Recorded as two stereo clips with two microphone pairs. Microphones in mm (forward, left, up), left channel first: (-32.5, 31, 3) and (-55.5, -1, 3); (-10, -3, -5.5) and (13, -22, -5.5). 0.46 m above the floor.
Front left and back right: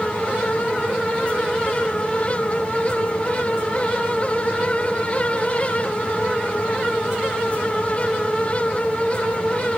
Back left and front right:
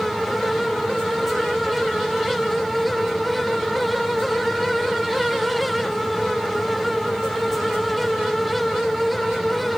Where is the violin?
I don't hear a violin.